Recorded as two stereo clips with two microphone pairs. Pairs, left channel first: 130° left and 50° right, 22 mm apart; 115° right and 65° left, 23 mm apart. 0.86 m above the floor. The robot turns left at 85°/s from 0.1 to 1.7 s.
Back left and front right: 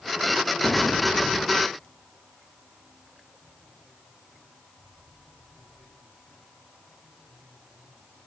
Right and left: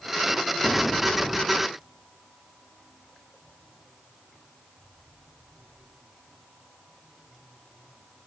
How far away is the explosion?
About 0.9 m.